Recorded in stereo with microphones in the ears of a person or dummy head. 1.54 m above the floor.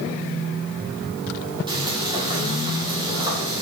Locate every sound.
1.7 s frying: 25° right (ahead or behind), 3 m